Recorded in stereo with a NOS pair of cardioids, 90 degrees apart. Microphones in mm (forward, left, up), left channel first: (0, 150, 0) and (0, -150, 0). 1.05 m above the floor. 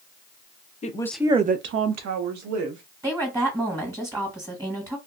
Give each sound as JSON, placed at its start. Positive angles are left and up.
{"t": 0.8, "sound": "a woman speaking", "azimuth_deg": 25, "distance_m": 0.6}
{"t": 3.0, "sound": "a woman speaking", "azimuth_deg": -10, "distance_m": 1.5}